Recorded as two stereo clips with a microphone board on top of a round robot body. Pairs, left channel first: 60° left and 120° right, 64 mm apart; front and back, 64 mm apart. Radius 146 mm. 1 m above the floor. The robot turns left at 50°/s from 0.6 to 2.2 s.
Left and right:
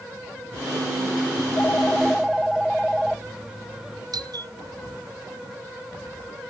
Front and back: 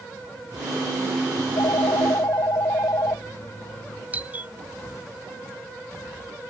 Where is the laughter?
No laughter in this recording.